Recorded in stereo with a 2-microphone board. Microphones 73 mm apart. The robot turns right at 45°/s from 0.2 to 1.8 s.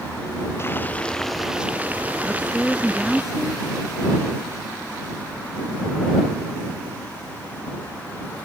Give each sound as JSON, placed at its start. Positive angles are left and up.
{"t": 0.6, "sound": "boiling", "azimuth_deg": 145}
{"t": 2.2, "sound": "a woman speaking", "side_deg": -5}